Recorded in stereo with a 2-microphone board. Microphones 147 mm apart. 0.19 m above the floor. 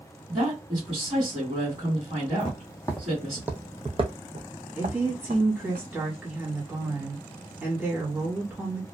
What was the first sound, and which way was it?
A woman speaking, 35° right (ahead or behind).